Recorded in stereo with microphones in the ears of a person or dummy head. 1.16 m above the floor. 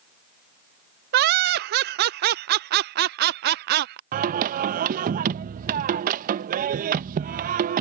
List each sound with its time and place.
1.1 s laughter: 55° right (ahead or behind)
4.1 s singing: 45° right (ahead or behind)